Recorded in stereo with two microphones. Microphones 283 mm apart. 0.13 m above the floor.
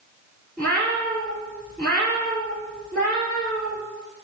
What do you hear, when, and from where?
0.6 s a cat meowing: 5° left (ahead or behind), 1.1 m